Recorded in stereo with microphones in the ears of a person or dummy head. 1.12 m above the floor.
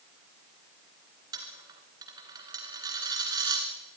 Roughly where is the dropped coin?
Centre.